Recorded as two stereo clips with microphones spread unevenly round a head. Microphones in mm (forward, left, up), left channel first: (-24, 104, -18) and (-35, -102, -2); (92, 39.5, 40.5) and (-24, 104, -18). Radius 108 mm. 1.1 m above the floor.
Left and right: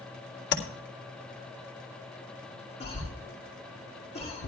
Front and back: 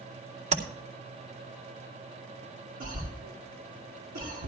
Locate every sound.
0.5 s tapping: 120° left, 2.5 m
2.8 s a cough: 145° left, 2.5 m